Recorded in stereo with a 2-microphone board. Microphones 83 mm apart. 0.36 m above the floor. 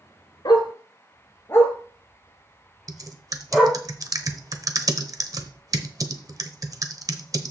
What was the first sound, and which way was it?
A dog barking, 60° left (ahead or behind).